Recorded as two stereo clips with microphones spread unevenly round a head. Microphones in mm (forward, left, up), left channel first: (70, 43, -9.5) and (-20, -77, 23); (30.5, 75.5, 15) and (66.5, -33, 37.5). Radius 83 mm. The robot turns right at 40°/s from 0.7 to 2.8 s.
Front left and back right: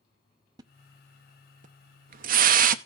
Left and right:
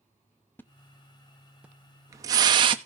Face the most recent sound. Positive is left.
turn(degrees=-115)